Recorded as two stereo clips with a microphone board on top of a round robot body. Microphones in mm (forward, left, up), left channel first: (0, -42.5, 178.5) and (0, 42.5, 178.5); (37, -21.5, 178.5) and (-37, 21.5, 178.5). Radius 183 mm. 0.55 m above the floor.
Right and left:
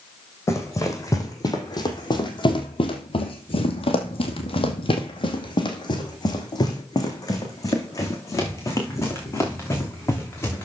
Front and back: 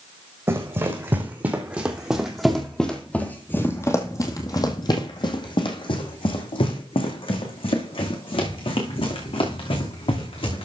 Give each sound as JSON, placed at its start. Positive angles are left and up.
{"t": 0.5, "sound": "running footsteps", "azimuth_deg": -150, "distance_m": 2.5}